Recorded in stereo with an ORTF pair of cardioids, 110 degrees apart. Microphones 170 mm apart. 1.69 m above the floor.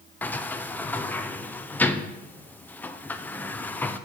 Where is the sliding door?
10° left, 0.9 m.